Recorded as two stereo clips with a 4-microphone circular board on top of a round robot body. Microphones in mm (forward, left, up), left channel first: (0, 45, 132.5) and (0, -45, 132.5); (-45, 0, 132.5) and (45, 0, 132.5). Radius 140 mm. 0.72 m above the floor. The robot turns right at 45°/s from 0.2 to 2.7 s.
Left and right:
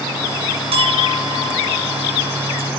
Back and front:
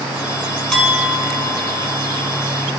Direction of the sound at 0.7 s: 95° right.